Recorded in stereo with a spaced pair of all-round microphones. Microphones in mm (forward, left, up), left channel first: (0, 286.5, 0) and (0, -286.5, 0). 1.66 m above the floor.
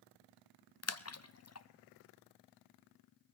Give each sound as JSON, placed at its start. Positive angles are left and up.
{"t": 0.8, "sound": "a splash", "side_deg": 30, "distance_m": 0.5}